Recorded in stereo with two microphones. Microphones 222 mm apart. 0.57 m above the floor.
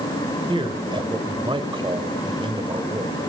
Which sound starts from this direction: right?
A man speaking, at 0.5 s.